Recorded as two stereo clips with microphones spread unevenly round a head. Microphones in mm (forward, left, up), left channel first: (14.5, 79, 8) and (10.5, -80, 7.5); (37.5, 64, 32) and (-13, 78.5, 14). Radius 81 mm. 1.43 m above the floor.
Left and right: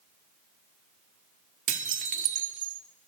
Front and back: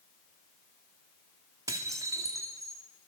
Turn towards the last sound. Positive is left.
turn(degrees=-135)